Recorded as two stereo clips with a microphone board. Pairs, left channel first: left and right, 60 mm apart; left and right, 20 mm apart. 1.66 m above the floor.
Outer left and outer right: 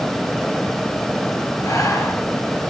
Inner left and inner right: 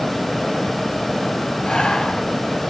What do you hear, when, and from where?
1.6 s breathing: 75° left (ahead or behind), 5 m